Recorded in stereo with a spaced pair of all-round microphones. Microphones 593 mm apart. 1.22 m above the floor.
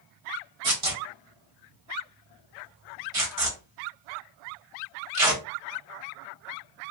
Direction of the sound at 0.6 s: 65° right (ahead or behind).